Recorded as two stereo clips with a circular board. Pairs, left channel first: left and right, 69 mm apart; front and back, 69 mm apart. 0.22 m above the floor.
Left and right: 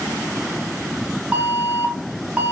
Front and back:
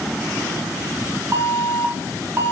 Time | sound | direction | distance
1.3 | an alarm | 150° right | 0.8 m